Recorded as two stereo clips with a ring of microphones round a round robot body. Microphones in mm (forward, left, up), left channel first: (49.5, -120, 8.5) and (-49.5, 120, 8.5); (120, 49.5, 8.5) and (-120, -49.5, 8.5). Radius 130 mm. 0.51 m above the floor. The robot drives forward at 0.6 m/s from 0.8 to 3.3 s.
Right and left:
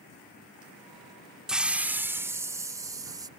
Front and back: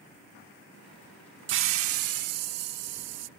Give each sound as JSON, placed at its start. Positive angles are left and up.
{"t": 1.5, "sound": "a hiss", "azimuth_deg": -160}